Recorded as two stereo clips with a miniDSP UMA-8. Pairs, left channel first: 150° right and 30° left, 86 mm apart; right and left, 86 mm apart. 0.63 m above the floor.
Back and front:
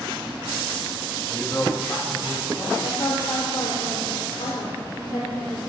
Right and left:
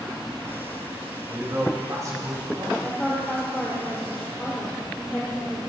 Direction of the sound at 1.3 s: 150° left.